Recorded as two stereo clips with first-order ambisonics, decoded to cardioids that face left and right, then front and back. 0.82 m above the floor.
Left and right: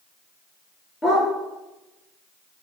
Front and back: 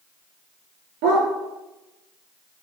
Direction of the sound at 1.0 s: 165° left.